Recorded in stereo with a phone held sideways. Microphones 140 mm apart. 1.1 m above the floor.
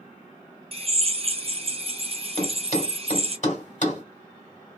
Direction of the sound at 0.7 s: 45° right (ahead or behind).